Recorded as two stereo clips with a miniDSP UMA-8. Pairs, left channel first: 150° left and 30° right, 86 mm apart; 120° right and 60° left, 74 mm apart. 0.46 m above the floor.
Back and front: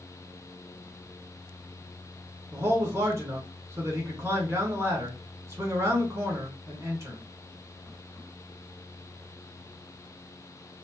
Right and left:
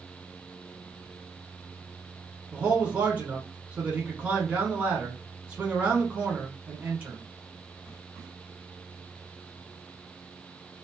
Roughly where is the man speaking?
Ahead.